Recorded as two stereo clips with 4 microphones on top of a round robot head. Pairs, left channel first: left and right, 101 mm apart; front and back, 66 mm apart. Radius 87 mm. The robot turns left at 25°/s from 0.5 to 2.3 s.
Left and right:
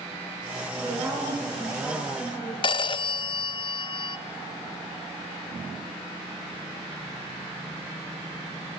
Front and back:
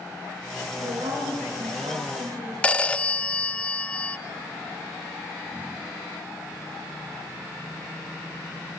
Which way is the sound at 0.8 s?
145° right.